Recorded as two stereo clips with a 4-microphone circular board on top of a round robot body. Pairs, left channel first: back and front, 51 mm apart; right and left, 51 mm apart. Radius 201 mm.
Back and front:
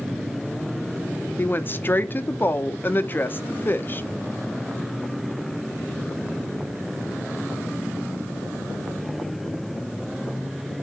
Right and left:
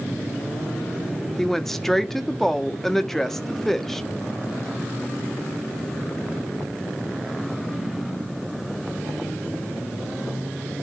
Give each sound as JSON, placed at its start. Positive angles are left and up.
{"t": 1.4, "sound": "a woman speaking", "azimuth_deg": -170, "distance_m": 1.0}